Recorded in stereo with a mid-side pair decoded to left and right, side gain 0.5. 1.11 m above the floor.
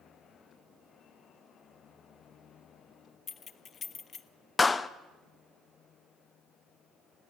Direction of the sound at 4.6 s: 25° left.